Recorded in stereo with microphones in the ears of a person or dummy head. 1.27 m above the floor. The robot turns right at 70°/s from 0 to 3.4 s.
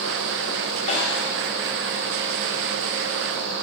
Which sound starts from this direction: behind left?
A snare drum, at 0.9 s.